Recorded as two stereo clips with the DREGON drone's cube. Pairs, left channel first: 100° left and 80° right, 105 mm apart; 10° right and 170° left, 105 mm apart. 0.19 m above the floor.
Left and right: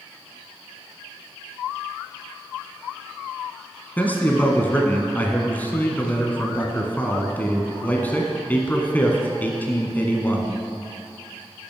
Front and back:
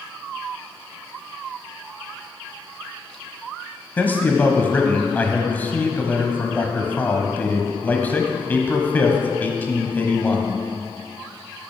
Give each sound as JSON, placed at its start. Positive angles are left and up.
{"t": 4.0, "sound": "a man speaking", "azimuth_deg": 45, "distance_m": 1.1}